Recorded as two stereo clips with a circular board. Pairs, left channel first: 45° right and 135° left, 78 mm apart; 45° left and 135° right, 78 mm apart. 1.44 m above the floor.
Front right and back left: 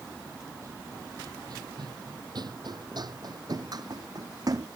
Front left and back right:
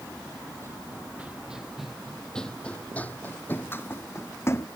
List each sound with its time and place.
0.6 s running footsteps: 175° left; by 4.7 s 100° left